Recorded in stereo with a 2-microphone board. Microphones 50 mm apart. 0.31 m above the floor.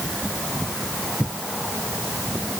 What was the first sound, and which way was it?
Only background noise.